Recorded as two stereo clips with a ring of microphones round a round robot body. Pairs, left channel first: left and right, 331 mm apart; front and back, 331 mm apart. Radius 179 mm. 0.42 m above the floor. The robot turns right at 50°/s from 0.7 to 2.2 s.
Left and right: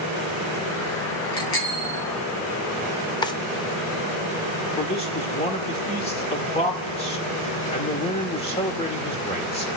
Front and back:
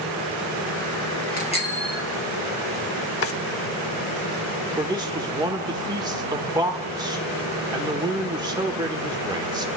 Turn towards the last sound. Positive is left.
turn(degrees=125)